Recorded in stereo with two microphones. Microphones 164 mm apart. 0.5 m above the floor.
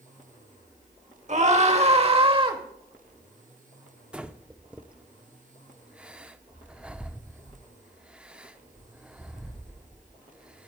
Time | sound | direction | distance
1.3 | a scream | 45° right (ahead or behind) | 1.7 m
4.1 | breathing | 5° right (ahead or behind) | 0.7 m